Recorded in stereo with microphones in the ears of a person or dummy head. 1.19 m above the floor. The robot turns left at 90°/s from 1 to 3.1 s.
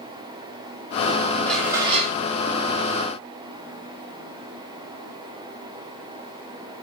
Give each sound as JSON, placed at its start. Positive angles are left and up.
{"t": 1.5, "sound": "dishes clattering", "azimuth_deg": 10, "distance_m": 0.7}